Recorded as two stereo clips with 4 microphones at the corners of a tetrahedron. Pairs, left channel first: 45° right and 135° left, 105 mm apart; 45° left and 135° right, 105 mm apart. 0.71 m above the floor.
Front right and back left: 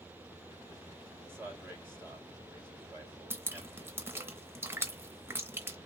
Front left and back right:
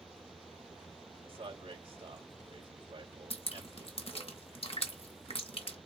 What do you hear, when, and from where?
1.2 s a man speaking: 155° right, 2.5 m
3.3 s dripping: 70° left, 1.0 m